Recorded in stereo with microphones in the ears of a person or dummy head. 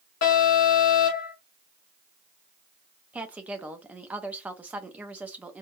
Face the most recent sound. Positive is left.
turn(degrees=-5)  # may be behind; listen again after turning